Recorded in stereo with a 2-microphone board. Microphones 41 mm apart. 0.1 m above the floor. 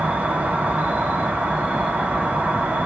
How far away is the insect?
About 0.8 m.